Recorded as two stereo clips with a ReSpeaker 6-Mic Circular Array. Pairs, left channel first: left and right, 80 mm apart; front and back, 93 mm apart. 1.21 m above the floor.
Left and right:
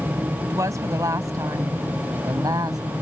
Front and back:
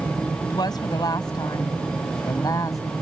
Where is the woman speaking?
40° right; by 2.8 s 50° right.